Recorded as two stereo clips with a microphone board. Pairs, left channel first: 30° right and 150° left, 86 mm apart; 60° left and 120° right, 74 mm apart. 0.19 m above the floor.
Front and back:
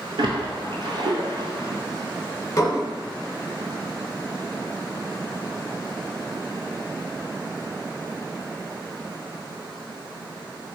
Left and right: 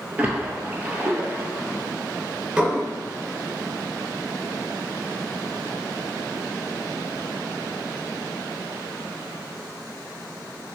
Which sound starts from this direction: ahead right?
Dishes clattering, at 2.6 s.